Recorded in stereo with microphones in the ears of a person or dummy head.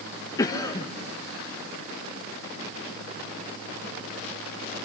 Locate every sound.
0.4 s a cough: 20° left (ahead or behind), 0.9 m